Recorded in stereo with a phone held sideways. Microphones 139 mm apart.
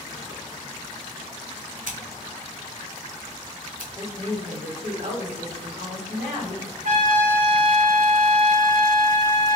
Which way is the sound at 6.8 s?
70° right (ahead or behind).